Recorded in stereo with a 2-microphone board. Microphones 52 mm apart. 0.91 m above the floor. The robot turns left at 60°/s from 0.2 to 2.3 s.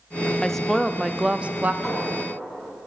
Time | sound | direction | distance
0.4 | a woman speaking | 20° left | 0.6 m
1.8 | a clink | 5° right (ahead or behind) | 7 m